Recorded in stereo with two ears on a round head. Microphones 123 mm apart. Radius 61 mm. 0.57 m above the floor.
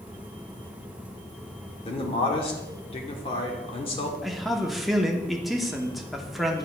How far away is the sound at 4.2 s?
About 0.9 m.